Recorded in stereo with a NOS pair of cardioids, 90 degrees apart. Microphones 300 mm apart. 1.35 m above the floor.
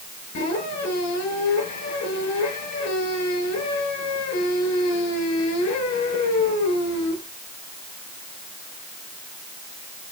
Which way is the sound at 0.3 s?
65° left.